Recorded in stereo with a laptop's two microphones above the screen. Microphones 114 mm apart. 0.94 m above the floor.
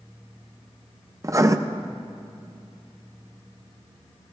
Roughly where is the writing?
Right.